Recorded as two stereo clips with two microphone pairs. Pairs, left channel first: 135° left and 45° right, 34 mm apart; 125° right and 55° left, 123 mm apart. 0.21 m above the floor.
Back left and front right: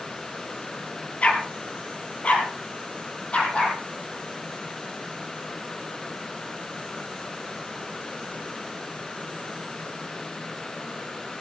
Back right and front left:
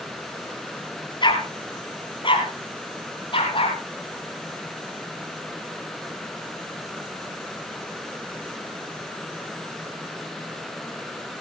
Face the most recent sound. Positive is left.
turn(degrees=-170)